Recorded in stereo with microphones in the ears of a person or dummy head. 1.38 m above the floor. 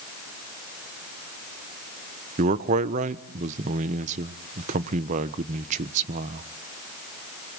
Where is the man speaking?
50° right (ahead or behind), 1.1 m.